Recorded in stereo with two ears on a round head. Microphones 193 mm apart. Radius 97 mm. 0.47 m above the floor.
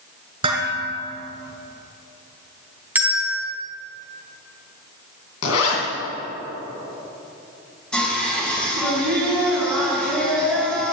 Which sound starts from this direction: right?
Dishes clattering, at 0.4 s.